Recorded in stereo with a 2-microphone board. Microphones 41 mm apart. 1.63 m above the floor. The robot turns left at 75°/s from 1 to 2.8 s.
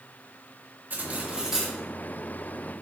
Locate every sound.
0.9 s cutlery clinking: 125° right, 1.7 m; by 1.8 s 175° left, 1.7 m